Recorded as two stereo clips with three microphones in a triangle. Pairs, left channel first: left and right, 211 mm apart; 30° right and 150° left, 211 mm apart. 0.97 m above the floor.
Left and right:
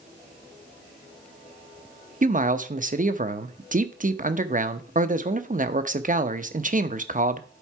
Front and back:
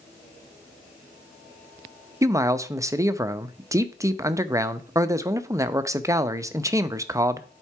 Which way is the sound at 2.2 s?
135° right.